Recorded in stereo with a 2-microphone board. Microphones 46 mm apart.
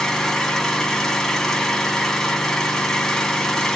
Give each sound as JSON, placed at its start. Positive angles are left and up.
{"t": 0.0, "sound": "an engine running", "side_deg": 10, "distance_m": 1.2}